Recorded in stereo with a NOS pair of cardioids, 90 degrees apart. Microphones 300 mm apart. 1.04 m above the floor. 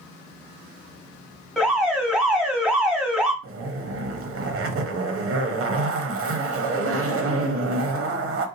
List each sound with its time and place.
1.6 s an alarm: straight ahead, 1.5 m
3.4 s a zipper: 45° right, 0.8 m